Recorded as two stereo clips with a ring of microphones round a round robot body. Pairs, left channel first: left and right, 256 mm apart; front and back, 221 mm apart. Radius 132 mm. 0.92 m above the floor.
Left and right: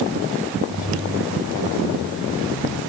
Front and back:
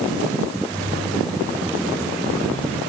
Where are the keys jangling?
85° left, 6.5 m.